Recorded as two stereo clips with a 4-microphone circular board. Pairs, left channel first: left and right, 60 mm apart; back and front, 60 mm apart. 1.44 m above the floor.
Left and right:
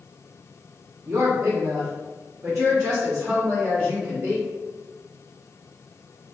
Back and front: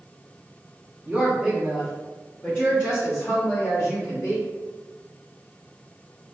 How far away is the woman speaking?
About 0.6 m.